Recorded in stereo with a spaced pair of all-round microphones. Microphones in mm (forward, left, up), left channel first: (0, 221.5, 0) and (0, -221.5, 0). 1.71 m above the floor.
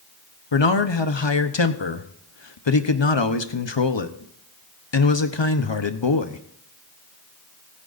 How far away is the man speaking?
About 1.0 m.